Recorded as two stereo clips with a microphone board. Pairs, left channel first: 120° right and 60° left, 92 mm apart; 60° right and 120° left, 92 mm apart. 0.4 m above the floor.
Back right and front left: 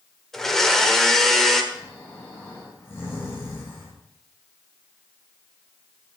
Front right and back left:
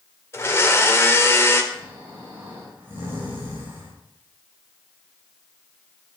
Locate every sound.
0.3 s a blender: 40° right, 1.0 m
1.7 s snoring: 175° right, 4 m